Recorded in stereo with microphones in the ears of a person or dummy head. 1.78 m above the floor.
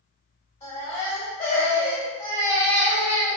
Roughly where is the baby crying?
Centre.